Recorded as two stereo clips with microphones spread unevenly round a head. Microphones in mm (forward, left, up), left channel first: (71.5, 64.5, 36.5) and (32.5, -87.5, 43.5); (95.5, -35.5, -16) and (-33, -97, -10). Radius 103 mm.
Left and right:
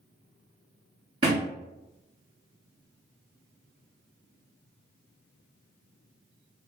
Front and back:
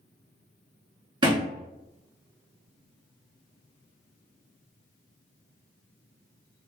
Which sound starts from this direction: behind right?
A thud, at 1.2 s.